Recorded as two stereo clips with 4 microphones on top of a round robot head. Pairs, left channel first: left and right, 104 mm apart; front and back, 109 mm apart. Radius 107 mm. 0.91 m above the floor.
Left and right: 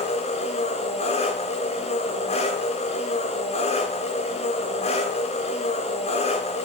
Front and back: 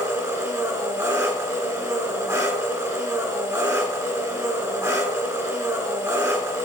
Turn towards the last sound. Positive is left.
turn(degrees=115)